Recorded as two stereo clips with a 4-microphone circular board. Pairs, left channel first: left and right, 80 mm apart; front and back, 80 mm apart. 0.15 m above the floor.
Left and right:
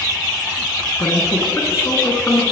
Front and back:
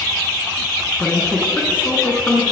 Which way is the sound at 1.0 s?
55° left.